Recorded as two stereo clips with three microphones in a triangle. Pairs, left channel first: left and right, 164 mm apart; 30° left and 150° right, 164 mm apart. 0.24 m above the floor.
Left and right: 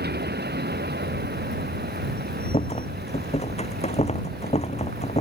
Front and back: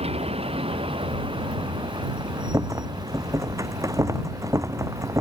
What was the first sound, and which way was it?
A vehicle, 100° right.